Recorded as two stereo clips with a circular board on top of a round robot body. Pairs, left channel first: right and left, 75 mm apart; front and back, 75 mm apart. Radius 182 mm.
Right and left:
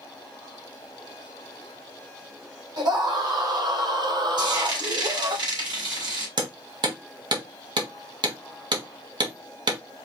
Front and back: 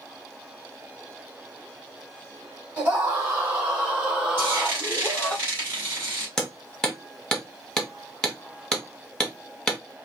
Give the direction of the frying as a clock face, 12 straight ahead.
8 o'clock.